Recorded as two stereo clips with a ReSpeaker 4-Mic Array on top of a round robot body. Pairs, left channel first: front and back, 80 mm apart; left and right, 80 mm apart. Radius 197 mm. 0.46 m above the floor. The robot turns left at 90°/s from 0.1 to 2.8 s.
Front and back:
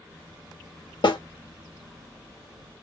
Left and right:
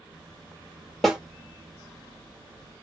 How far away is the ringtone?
No ringtone in this recording.